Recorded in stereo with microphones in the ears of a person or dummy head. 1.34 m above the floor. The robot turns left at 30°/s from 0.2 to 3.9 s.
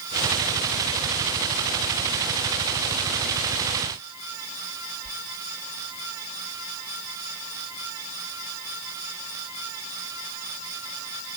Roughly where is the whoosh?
Right.